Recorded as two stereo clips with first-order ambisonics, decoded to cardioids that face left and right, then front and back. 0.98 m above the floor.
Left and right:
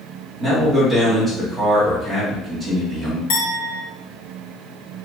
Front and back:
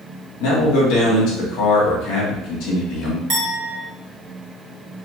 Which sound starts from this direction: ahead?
A man speaking, at 0.4 s.